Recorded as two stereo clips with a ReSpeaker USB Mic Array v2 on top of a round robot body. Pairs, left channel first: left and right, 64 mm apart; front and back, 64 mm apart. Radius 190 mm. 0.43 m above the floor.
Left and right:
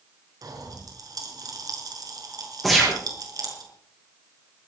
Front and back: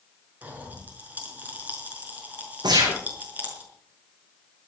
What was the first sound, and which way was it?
A pop, 115° right.